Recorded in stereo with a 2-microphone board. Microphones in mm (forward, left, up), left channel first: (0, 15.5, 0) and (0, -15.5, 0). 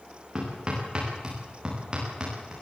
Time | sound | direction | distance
0.3 | hammering | 25° right (ahead or behind) | 10 m